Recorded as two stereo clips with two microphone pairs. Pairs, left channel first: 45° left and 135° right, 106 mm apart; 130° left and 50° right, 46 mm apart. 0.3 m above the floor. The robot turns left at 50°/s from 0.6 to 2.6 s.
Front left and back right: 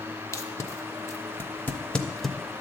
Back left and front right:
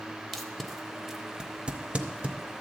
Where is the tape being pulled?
45° left, 0.7 m; by 2.4 s 40° right, 0.7 m.